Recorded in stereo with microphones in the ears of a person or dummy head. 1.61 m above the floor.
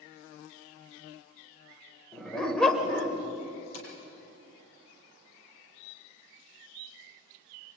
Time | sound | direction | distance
2.1 | a dog barking | 5° left (ahead or behind) | 2.5 m
3.7 | tapping | 80° left | 7 m